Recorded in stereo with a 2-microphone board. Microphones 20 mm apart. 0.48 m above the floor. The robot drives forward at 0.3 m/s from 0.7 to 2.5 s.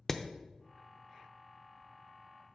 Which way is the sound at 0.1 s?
15° left (ahead or behind).